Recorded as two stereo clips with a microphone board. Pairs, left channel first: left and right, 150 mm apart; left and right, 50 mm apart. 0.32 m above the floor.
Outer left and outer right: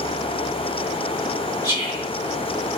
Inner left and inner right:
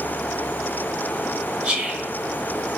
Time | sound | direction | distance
1.6 | whispering | 20° right (ahead or behind) | 1.0 m